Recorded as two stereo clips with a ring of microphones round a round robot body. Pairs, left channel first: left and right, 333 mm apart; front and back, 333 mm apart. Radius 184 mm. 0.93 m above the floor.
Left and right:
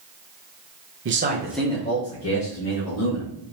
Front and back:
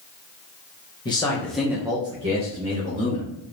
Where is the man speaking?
70° right, 1.1 m; by 3.3 s 110° left, 2.5 m.